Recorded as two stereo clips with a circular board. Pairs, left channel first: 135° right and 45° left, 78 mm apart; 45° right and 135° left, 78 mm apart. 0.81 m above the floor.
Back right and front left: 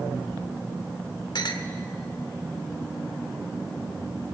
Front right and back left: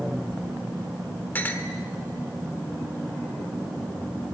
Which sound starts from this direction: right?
A clink, at 1.4 s.